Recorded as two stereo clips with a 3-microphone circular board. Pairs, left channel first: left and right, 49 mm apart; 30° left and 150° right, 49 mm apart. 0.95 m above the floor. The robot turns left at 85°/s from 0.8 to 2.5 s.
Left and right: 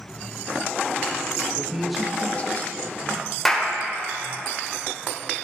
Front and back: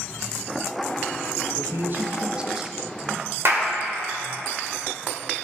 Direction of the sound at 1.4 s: 130° right.